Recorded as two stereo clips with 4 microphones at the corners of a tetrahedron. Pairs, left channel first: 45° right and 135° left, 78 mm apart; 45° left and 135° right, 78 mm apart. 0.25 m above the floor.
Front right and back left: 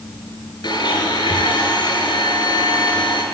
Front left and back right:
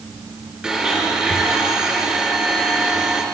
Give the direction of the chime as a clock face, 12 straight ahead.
No chime in this recording.